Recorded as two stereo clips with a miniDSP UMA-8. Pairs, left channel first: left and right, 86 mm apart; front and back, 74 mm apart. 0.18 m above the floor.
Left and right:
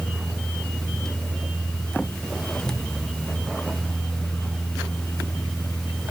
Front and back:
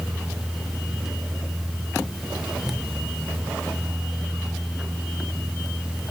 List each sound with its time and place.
Only background noise.